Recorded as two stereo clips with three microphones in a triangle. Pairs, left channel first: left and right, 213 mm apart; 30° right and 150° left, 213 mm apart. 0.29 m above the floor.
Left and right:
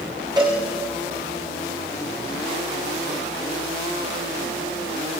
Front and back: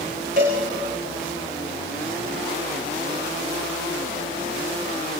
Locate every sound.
0.4 s a cowbell: 160° right, 7 m